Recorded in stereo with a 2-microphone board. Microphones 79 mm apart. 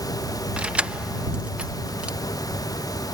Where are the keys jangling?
15° right (ahead or behind).